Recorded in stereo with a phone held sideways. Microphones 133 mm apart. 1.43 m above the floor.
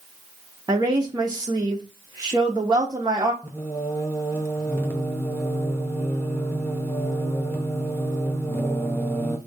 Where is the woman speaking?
30° right (ahead or behind), 0.7 m.